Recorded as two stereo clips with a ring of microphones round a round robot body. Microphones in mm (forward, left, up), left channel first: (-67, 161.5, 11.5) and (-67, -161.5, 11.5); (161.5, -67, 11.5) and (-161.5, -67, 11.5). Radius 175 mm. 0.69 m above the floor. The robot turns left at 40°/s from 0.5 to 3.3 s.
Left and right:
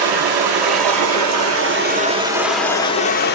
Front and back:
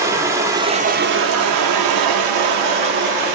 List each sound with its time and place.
0.0 s running water: 100° right, 0.8 m; by 3.4 s 150° left, 0.8 m